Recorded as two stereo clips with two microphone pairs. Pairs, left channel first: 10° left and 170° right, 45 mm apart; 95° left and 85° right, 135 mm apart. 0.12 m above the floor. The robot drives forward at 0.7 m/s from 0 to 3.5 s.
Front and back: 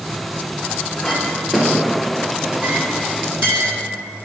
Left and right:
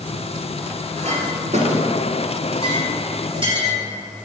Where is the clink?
65° right, 1.5 m; by 3.8 s 135° right, 1.9 m.